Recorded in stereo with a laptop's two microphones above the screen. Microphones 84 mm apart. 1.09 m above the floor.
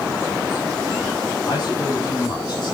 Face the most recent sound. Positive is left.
turn(degrees=55)  # may be behind; listen again after turning